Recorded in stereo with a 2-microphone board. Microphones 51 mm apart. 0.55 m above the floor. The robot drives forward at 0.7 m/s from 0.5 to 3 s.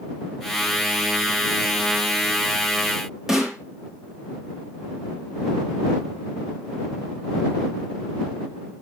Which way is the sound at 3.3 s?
10° right (ahead or behind).